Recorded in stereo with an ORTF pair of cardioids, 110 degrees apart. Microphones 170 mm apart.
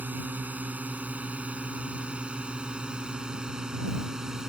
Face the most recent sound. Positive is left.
turn(degrees=-5)